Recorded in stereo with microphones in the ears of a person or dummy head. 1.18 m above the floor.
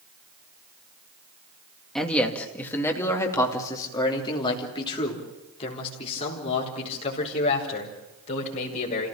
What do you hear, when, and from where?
1.9 s a man speaking: centre (ahead or behind), 2 m; by 9.1 s 40° left (ahead or behind), 6 m